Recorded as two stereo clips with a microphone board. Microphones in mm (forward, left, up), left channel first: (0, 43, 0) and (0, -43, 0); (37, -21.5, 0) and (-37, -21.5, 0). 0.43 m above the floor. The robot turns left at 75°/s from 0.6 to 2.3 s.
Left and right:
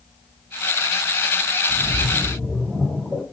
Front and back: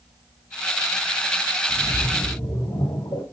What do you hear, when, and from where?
1.7 s a splash: 50° left, 3 m; by 3.2 s 5° left, 3 m